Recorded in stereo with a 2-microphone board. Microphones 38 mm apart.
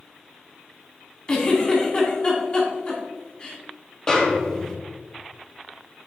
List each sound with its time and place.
1.3 s a giggle: 25° left (ahead or behind), 2 m
4.1 s a snare drum: 20° left (ahead or behind), 1.4 m